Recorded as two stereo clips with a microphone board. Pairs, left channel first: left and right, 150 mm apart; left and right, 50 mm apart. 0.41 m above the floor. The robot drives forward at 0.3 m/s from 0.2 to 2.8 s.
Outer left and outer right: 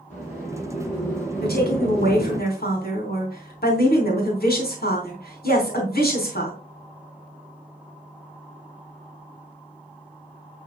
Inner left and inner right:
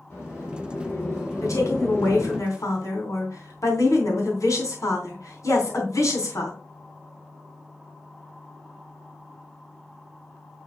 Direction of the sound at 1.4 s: 75° left (ahead or behind).